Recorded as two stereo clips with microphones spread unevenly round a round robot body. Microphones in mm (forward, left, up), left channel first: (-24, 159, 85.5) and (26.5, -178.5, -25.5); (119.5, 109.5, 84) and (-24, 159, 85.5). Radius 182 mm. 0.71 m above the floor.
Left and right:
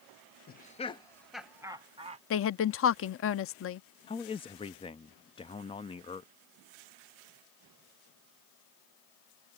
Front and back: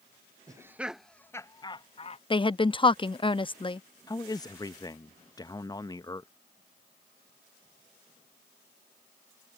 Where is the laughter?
170° left; by 2.2 s 40° right.